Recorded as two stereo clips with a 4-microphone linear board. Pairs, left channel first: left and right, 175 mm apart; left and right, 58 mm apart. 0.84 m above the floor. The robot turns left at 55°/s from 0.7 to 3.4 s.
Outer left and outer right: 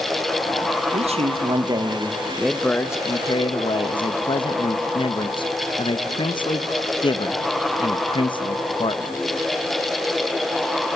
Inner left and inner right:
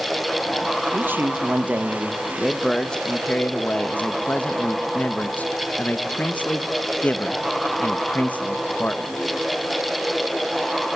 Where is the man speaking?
95° right, 0.9 m; by 9.1 s 130° left, 0.9 m.